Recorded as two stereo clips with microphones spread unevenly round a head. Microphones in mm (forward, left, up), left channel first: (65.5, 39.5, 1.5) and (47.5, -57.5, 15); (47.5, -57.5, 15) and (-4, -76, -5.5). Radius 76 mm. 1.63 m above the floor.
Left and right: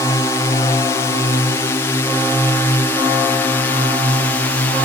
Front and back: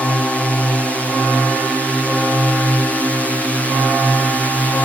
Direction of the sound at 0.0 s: 115° left.